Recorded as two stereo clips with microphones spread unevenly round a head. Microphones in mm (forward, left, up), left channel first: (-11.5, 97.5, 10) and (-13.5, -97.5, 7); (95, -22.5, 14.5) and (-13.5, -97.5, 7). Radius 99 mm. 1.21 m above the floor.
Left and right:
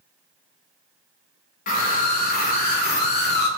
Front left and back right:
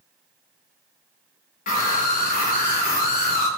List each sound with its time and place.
1.7 s a scream: 45° left, 4 m; by 3.5 s 50° left, 3 m